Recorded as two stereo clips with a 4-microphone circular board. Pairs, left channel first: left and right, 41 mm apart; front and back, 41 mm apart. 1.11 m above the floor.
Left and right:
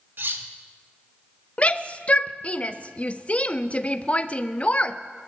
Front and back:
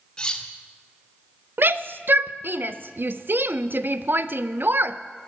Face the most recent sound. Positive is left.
turn(degrees=145)